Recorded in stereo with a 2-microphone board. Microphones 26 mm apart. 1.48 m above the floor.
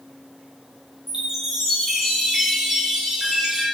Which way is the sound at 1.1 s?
15° right (ahead or behind).